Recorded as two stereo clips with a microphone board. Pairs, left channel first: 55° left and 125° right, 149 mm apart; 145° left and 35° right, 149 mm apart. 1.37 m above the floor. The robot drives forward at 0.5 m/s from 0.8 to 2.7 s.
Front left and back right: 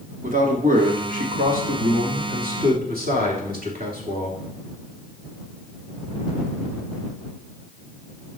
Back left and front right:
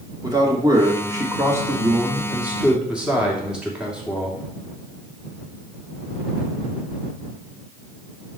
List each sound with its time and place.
0.2 s a man speaking: 100° right, 2.5 m; by 4.4 s 120° right, 3 m